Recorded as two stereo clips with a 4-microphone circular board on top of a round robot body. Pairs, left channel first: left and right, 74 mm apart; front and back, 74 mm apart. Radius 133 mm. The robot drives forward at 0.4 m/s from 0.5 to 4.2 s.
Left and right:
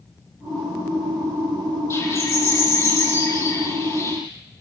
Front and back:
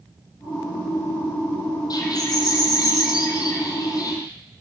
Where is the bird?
35° left, 9.5 m; by 4.2 s 40° left, 9 m.